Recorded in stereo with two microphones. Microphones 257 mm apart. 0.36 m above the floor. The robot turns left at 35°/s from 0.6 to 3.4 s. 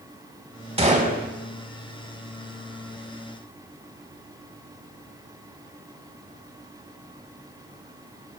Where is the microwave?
No microwave in this recording.